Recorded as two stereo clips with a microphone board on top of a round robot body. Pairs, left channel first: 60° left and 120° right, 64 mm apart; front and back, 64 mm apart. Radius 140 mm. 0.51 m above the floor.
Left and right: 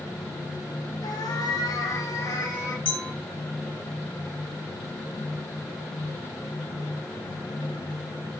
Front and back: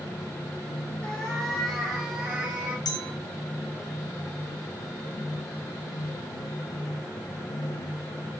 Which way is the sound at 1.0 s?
75° left.